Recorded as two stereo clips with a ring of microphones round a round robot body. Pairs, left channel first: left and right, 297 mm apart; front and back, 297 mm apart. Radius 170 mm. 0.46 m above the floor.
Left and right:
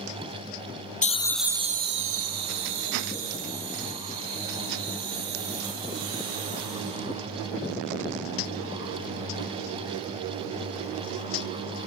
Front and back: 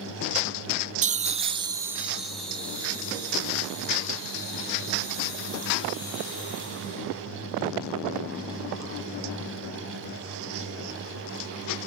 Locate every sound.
1.0 s laughter: 135° left, 0.9 m; by 7.0 s 75° right, 5.5 m